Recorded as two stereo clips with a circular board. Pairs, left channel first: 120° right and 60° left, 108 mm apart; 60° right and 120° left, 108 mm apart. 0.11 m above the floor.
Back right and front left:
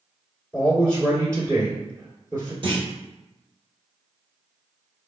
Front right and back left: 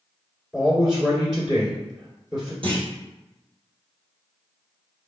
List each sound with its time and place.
0.5 s a man speaking: 45° left, 1.9 m
2.6 s a clunk: 90° left, 1.1 m